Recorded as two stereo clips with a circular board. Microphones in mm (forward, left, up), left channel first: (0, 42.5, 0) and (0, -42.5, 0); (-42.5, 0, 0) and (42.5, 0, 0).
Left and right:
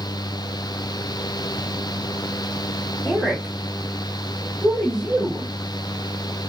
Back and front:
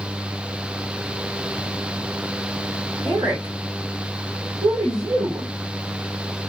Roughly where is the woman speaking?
Ahead.